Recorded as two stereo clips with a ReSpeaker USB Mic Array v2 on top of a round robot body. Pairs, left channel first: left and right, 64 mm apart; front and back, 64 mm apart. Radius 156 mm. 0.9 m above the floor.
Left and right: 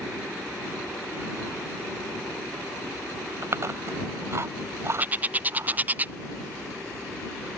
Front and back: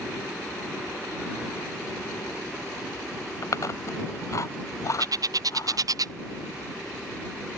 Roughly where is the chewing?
Ahead right.